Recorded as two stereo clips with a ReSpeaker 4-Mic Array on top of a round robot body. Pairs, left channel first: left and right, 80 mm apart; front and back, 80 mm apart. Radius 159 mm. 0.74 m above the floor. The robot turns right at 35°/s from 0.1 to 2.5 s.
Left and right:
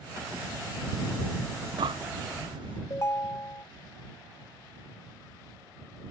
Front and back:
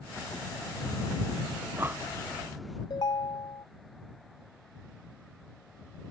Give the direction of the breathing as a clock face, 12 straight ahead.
4 o'clock.